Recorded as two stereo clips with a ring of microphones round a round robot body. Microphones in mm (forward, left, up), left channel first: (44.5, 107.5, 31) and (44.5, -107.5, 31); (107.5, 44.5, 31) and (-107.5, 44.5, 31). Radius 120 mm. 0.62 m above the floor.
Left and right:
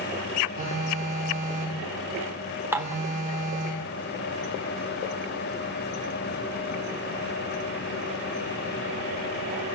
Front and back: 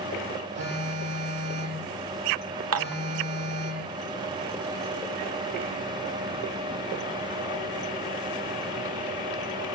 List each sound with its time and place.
0.6 s a phone buzzing: 145° right, 8.5 m
2.7 s dishes clattering: 170° right, 1.3 m